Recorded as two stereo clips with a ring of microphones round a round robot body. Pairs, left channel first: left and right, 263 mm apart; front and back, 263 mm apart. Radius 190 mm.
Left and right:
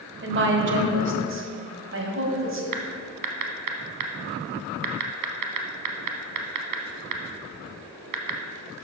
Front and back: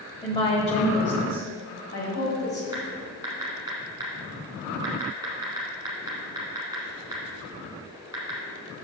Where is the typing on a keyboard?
100° right, 0.9 m.